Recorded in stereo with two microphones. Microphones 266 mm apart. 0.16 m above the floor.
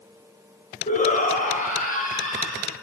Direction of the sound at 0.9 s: 30° left (ahead or behind).